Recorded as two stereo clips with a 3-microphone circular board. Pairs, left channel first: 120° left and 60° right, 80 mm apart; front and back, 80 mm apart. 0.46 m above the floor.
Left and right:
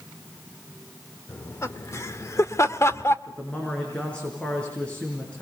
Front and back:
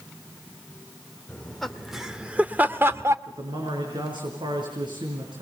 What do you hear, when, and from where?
1.3 s laughter: 75° left, 1.3 m; by 3.2 s 155° left, 1.1 m
3.3 s a man speaking: 165° right, 5 m